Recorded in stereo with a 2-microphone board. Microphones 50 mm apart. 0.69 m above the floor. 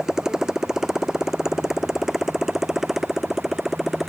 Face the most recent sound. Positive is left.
turn(degrees=-5)  # may be behind; listen again after turning